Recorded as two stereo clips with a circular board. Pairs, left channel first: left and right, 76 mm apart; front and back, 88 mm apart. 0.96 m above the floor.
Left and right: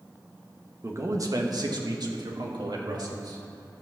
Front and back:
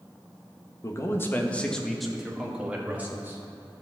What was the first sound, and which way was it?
A man speaking, 45° right.